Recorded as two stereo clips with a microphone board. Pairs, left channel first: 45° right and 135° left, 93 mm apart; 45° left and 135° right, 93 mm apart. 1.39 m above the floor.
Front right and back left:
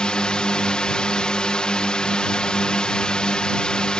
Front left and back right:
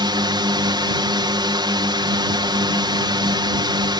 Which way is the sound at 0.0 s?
125° right.